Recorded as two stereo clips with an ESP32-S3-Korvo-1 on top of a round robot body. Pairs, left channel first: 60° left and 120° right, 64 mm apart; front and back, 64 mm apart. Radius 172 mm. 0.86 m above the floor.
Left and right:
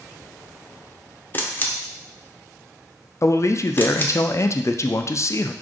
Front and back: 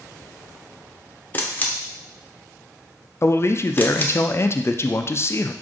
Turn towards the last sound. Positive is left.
turn(degrees=35)